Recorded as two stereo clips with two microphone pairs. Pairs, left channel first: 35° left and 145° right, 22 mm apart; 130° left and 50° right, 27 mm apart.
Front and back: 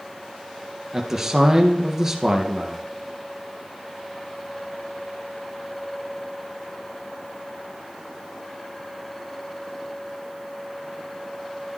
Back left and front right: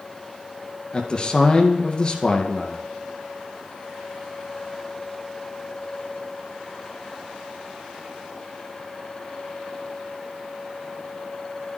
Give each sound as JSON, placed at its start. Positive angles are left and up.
{"t": 0.9, "sound": "a man speaking", "azimuth_deg": 150, "distance_m": 1.7}